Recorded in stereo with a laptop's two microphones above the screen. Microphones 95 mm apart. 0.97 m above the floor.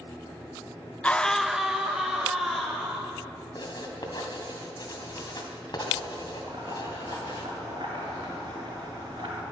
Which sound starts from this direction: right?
Boiling, at 6.4 s.